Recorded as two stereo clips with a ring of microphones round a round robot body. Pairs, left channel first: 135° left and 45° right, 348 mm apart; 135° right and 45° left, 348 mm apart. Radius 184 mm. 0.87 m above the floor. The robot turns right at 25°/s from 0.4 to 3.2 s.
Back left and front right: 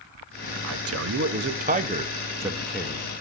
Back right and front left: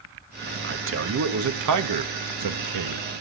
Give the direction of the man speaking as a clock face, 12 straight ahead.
12 o'clock.